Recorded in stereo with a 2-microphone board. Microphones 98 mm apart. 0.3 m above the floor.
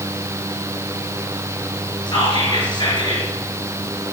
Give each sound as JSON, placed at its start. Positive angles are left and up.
{"t": 2.1, "sound": "whispering", "side_deg": 50, "distance_m": 4.0}